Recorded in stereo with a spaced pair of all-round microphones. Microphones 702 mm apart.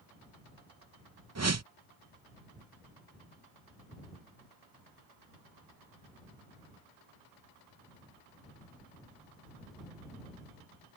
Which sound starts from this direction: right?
A whoosh, at 1.4 s.